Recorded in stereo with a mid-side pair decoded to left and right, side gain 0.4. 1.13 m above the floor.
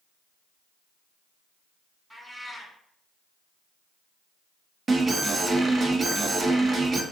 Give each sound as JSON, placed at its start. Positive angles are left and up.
{"t": 2.1, "sound": "a cat meowing", "azimuth_deg": -5, "distance_m": 1.2}
{"t": 4.9, "sound": "an alarm", "azimuth_deg": -40, "distance_m": 0.6}